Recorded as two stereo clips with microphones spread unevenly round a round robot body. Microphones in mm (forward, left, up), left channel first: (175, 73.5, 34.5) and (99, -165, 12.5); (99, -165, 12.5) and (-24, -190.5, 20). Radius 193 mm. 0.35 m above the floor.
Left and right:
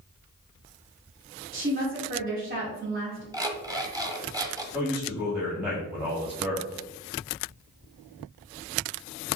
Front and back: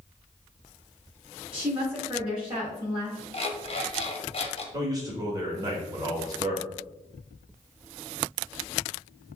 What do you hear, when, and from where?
1.5 s a woman speaking: 90° right, 1.7 m
3.3 s an alarm clock: 30° right, 1.0 m
4.7 s a man speaking: 175° right, 1.1 m